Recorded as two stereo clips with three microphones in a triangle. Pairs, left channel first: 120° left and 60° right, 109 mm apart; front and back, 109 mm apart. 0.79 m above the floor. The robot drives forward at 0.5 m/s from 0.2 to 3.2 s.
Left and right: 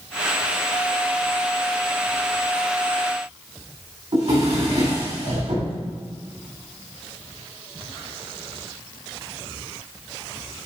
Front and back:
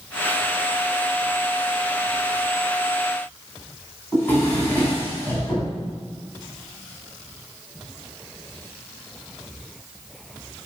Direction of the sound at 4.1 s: 70° right.